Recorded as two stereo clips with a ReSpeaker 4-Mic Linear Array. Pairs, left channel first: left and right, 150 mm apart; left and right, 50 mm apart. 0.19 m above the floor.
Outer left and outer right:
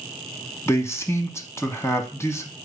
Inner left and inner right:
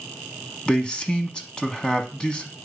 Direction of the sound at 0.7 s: 20° left (ahead or behind).